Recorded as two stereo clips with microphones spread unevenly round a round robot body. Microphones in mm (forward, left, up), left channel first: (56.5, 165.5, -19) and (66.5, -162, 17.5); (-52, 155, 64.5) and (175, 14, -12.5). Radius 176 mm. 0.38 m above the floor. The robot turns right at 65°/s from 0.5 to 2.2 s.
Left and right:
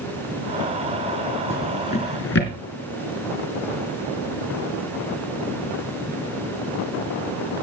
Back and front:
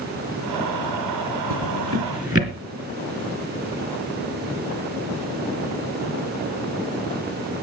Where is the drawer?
5° right, 3 m; by 2.5 s 40° left, 3 m.